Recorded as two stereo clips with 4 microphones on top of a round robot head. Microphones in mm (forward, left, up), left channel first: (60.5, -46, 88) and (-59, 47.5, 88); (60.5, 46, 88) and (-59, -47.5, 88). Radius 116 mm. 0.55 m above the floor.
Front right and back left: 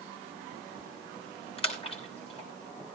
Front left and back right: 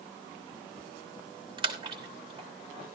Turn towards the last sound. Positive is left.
turn(degrees=-85)